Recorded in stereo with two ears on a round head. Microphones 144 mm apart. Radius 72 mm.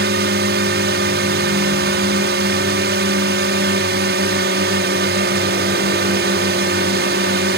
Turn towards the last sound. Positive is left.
turn(degrees=-70)  # may be behind; listen again after turning